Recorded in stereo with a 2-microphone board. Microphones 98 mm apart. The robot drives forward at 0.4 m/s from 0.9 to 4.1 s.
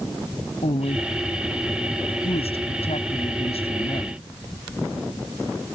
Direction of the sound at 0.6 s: 75° left (ahead or behind).